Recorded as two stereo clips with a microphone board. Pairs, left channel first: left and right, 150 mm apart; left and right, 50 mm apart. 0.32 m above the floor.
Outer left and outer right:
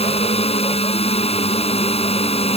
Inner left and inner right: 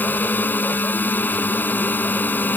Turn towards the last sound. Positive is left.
turn(degrees=40)  # may be behind; listen again after turning